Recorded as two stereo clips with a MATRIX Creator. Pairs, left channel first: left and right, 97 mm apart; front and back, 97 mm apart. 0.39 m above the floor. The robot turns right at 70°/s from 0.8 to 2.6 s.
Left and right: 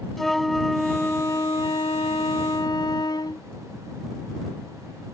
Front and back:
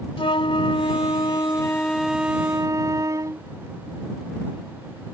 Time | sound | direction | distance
0.2 | a flute | 5° left | ?